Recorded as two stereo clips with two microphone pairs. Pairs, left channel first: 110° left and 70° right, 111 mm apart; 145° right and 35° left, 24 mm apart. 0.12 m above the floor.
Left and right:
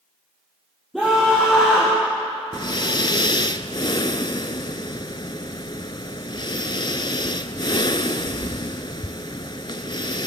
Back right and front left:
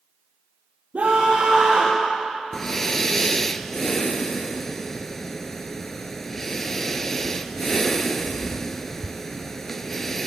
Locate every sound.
0.9 s a scream: 20° left, 5 m
2.5 s breathing: 140° left, 0.6 m